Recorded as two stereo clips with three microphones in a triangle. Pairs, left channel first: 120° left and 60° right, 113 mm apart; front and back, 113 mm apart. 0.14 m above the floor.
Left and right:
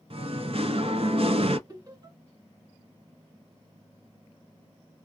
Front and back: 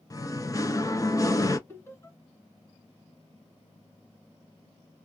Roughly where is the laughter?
Ahead right.